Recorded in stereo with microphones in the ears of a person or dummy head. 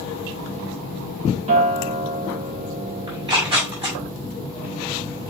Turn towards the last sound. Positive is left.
turn(degrees=-30)  # may be behind; listen again after turning